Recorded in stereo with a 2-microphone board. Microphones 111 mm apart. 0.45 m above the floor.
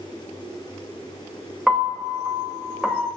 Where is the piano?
5° right (ahead or behind), 1.2 m.